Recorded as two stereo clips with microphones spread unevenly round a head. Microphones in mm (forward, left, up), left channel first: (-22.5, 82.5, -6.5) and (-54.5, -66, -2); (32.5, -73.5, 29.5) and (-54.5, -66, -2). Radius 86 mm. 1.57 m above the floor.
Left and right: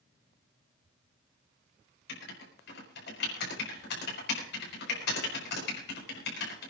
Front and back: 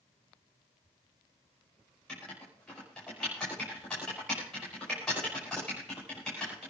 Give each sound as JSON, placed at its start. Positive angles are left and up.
{"t": 2.1, "sound": "writing", "azimuth_deg": 80, "distance_m": 5.5}